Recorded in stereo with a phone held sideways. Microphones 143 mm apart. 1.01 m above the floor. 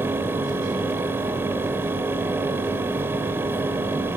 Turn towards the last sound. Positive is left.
turn(degrees=-15)  # may be behind; listen again after turning